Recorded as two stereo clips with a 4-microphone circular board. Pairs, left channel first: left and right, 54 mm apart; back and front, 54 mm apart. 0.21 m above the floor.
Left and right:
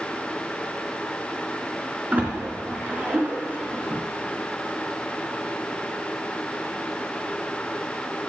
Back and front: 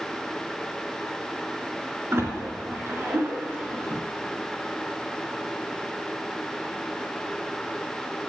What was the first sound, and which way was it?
A splash, 35° right.